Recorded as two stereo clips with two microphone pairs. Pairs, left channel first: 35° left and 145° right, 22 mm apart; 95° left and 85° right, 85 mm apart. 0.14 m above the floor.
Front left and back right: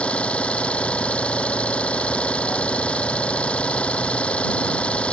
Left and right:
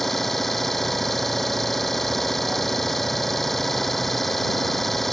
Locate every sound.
0.0 s an engine running: 10° left